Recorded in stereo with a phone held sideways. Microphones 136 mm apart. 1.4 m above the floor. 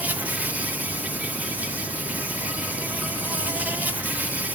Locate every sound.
0.0 s an insect: 10° right (ahead or behind)